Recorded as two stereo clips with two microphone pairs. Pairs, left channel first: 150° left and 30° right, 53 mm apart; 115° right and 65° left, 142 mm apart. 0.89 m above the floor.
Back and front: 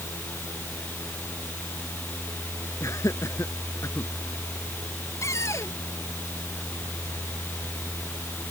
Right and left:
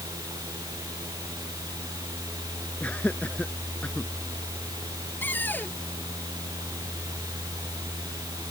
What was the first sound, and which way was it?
Laughter, 165° left.